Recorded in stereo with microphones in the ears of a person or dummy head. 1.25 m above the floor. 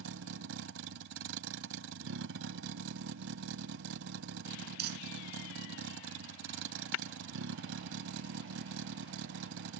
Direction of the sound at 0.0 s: 80° right.